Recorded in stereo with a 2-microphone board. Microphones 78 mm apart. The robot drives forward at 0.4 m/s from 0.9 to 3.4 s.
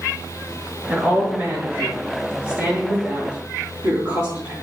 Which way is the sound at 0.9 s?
30° right (ahead or behind).